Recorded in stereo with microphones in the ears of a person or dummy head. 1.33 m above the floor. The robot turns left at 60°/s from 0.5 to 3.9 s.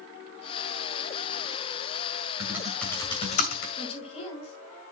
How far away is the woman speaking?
About 7.5 m.